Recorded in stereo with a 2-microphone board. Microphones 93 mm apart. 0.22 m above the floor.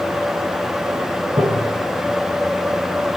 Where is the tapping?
55° right (ahead or behind), 1.1 m.